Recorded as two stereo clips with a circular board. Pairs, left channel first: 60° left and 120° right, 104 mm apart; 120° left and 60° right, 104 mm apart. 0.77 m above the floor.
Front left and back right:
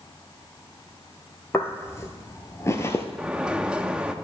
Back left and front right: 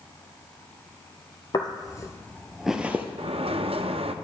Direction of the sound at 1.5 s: 120° left.